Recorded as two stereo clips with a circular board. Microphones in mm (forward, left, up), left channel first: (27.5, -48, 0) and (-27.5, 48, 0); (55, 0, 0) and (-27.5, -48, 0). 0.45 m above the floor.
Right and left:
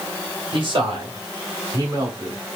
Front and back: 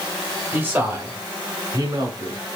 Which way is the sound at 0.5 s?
140° left.